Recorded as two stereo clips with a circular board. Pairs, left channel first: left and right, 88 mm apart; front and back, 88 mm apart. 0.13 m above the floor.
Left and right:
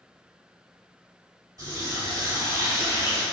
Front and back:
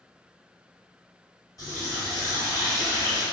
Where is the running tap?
45° right, 1.9 m.